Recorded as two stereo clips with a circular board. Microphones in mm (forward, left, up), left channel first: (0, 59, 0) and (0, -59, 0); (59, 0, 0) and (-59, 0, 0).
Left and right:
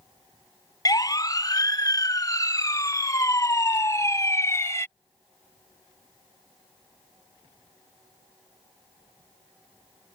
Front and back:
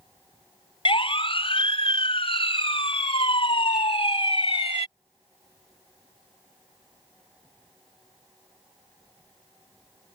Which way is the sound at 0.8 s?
35° left.